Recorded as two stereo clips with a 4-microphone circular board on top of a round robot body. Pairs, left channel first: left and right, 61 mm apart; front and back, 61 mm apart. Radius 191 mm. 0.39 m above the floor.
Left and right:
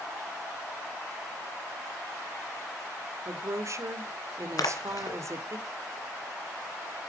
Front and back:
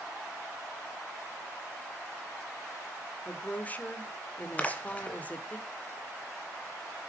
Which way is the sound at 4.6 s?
70° left.